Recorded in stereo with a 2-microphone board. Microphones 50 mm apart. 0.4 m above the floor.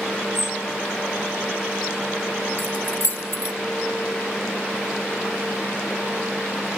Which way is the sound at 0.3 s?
80° left.